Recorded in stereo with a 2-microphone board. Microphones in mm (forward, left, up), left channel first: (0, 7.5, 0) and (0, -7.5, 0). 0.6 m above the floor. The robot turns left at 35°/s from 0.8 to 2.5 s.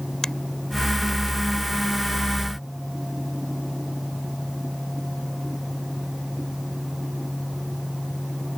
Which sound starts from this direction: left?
A finger snap, at 0.2 s.